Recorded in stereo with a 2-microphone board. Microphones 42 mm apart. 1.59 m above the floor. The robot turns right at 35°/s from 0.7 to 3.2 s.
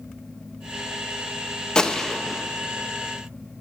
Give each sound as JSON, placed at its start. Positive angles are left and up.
{"t": 1.8, "sound": "a gunshot", "side_deg": 20, "distance_m": 1.1}